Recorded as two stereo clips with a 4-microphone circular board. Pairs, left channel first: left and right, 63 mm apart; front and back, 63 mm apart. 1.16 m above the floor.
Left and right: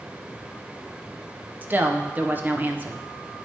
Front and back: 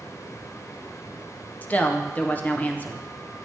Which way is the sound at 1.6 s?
50° right.